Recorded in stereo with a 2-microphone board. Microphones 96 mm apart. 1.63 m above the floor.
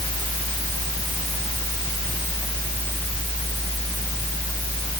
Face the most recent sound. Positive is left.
No sound to turn to.